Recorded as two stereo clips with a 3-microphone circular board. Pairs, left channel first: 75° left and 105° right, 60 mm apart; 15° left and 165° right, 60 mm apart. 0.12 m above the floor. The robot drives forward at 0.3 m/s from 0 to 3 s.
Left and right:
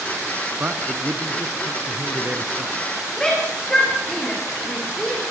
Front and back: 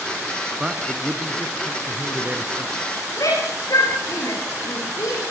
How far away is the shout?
About 7 m.